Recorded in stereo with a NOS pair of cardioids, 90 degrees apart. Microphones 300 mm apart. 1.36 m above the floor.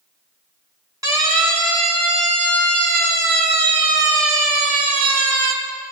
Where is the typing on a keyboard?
No typing on a keyboard in this recording.